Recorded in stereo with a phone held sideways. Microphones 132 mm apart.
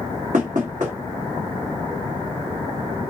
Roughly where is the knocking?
Right.